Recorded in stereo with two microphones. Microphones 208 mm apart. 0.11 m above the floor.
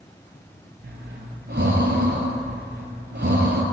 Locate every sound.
0.8 s breathing: 60° right (ahead or behind), 0.7 m